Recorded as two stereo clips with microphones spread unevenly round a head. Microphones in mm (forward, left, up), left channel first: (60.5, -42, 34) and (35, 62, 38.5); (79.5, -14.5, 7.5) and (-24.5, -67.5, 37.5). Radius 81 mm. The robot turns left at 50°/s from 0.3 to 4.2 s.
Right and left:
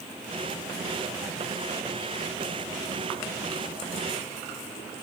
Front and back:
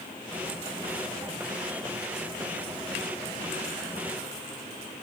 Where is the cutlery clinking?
No cutlery clinking in this recording.